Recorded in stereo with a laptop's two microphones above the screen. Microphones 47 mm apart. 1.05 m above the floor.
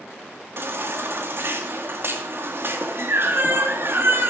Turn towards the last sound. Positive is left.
turn(degrees=-55)  # may be behind; listen again after turning